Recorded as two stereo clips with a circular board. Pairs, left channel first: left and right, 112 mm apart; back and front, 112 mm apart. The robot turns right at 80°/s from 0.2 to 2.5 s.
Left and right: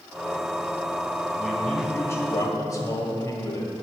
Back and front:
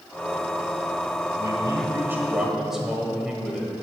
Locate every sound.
1.4 s a man speaking: 10° right, 1.4 m; by 3.7 s 85° left, 1.4 m